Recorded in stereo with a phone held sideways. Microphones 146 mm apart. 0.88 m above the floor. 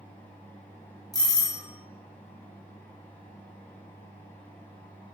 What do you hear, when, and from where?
0.0 s a fan: 15° left (ahead or behind), 0.9 m
1.1 s a doorbell: 25° left (ahead or behind), 0.8 m